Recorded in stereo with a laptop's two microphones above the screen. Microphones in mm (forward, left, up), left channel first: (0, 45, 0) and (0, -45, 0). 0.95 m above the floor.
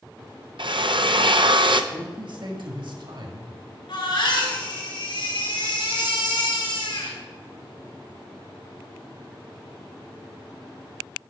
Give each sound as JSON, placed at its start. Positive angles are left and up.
{"t": 0.6, "sound": "a drill", "side_deg": -65, "distance_m": 0.5}
{"t": 1.9, "sound": "a man speaking", "side_deg": -60, "distance_m": 1.6}
{"t": 3.9, "sound": "a baby crying", "side_deg": 70, "distance_m": 3.0}